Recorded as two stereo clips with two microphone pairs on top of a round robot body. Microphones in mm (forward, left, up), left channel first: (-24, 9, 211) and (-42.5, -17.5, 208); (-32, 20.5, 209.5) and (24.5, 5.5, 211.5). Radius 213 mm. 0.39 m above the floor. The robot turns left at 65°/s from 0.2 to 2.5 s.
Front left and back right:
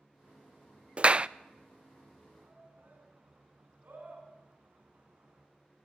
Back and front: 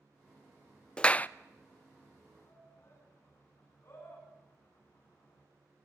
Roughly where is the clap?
Behind right.